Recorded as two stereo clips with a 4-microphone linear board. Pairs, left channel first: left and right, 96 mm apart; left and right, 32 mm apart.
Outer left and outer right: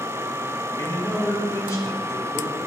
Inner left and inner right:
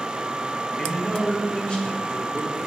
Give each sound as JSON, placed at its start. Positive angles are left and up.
{"t": 0.8, "sound": "a man speaking", "side_deg": 35, "distance_m": 1.4}